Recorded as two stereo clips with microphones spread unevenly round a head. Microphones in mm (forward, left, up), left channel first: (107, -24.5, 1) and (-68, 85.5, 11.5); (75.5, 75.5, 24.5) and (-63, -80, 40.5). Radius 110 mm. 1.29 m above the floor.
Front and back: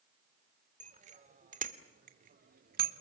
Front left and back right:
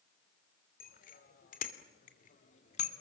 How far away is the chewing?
I don't hear chewing.